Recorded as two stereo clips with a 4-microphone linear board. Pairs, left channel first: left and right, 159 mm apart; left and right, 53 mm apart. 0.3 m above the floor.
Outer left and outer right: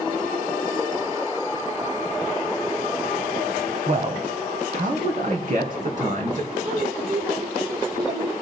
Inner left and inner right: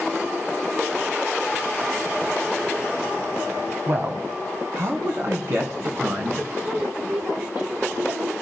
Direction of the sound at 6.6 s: 50° right (ahead or behind).